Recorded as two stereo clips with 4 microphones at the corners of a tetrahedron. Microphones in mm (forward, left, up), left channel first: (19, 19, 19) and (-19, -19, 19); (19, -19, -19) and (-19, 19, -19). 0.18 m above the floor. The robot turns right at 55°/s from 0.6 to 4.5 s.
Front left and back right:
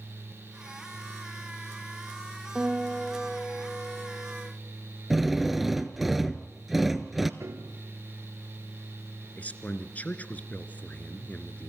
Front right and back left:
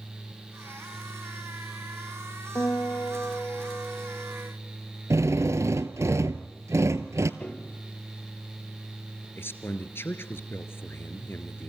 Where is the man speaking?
15° right, 2 m.